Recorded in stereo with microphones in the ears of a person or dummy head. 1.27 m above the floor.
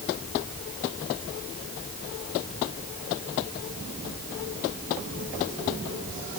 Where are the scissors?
No scissors in this recording.